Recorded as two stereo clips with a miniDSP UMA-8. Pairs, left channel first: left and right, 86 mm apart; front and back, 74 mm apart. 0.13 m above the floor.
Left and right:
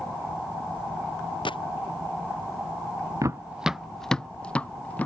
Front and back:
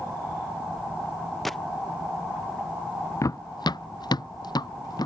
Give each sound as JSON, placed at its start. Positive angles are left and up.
{"t": 1.4, "sound": "a gunshot", "azimuth_deg": 90}
{"t": 3.2, "sound": "running footsteps", "azimuth_deg": -45}